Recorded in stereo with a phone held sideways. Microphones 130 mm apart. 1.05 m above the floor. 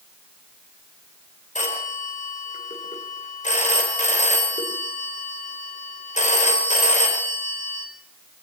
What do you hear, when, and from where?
1.6 s a phone ringing: 70° left (ahead or behind), 2.5 m